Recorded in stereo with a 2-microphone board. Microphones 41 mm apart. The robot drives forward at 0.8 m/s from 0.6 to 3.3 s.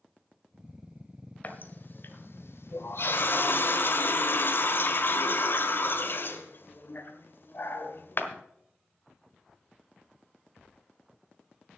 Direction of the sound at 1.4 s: 45° left (ahead or behind).